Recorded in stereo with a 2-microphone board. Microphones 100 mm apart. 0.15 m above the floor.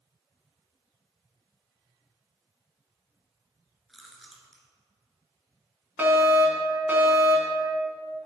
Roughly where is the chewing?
Centre.